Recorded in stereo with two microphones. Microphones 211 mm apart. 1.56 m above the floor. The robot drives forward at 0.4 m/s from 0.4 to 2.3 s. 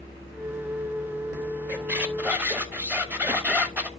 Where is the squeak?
5° right (ahead or behind), 0.9 m.